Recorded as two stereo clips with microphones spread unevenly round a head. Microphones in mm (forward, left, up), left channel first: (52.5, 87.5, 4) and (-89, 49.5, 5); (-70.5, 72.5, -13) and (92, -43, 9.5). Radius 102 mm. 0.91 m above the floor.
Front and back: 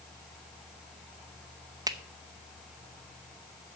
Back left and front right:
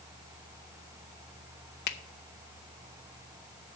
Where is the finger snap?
135° left, 0.8 m.